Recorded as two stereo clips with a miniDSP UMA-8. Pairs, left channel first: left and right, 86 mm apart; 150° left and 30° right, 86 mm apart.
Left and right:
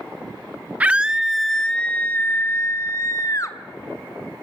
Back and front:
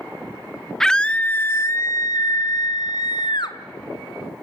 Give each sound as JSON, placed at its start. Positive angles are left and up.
{"t": 0.8, "sound": "a scream", "azimuth_deg": -135, "distance_m": 0.9}